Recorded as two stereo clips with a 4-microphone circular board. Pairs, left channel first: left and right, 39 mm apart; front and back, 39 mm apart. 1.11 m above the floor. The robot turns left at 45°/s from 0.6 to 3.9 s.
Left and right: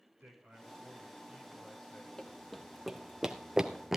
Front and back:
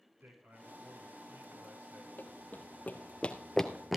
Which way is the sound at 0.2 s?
130° right.